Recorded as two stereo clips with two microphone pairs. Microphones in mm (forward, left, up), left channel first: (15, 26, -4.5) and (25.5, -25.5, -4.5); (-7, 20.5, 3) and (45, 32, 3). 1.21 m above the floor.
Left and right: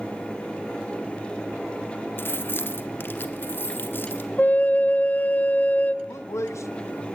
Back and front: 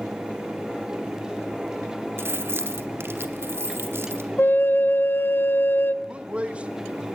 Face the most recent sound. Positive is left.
turn(degrees=80)